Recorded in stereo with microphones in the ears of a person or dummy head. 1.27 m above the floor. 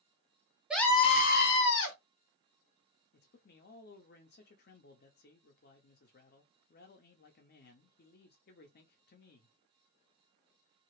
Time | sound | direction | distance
0.7 | a scream | 5° right (ahead or behind) | 0.5 m
3.1 | a man speaking | 55° left (ahead or behind) | 0.6 m